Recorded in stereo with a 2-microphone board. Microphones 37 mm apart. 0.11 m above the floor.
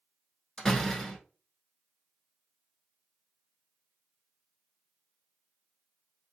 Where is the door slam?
5° left (ahead or behind), 0.9 m.